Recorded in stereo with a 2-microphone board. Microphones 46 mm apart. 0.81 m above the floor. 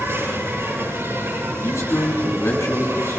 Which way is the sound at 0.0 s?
60° right (ahead or behind).